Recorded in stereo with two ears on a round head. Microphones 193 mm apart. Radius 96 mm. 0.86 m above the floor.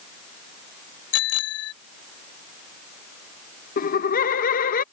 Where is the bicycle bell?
80° left.